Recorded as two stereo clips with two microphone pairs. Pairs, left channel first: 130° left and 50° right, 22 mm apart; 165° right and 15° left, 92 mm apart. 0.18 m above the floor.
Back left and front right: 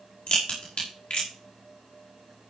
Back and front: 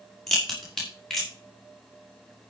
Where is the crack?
110° left, 6 m.